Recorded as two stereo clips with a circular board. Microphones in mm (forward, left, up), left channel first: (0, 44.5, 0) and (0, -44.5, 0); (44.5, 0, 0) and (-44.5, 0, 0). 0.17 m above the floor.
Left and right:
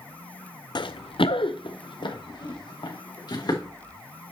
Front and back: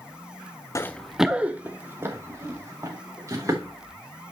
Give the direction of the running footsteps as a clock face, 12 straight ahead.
10 o'clock.